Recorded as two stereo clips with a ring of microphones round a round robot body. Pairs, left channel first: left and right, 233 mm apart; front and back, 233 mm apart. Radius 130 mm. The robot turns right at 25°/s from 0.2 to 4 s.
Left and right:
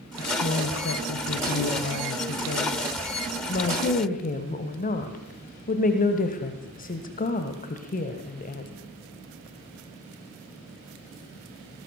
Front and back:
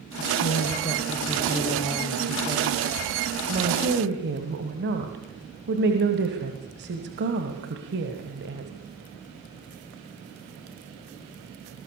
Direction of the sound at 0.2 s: 45° left.